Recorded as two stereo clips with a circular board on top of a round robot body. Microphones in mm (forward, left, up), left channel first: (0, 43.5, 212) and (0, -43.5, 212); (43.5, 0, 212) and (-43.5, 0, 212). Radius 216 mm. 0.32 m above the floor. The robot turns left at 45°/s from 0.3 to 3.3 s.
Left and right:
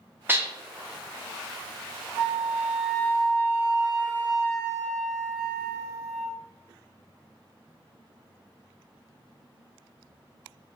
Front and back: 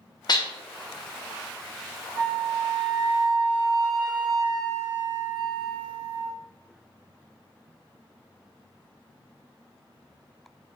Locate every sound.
0.3 s dishes clattering: 25° right, 1.0 m; by 0.5 s 35° right, 1.0 m
2.1 s a flute: 145° right, 1.6 m; by 6.3 s 160° left, 1.6 m